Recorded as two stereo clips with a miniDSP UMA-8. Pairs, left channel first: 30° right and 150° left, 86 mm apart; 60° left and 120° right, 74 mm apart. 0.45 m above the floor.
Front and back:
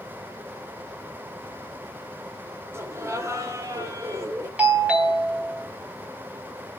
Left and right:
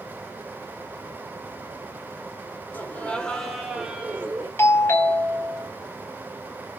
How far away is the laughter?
About 1.7 m.